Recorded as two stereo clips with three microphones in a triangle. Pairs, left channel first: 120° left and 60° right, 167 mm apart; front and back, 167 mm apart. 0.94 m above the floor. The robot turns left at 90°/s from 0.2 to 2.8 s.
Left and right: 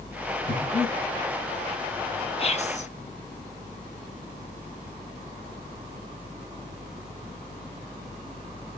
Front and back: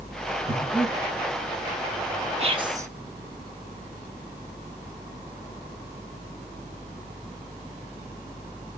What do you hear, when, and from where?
0.5 s breathing: 105° left, 6 m; by 0.9 s 60° left, 6 m
2.4 s whispering: 155° left, 0.9 m; by 2.9 s 120° left, 0.9 m